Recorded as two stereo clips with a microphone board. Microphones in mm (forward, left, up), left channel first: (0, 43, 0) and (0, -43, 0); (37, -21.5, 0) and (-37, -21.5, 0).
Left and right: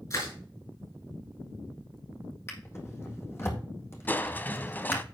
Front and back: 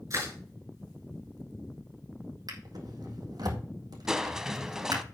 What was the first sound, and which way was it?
Crushing, 135° left.